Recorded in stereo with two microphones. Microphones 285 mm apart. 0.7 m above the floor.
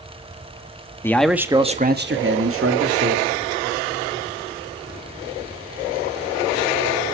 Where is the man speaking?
10° left (ahead or behind), 1.4 m; by 3.3 s 55° right (ahead or behind), 2.5 m.